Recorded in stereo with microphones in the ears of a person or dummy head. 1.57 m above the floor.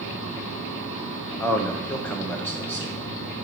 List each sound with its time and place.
1.4 s a man speaking: 5° left (ahead or behind), 1.5 m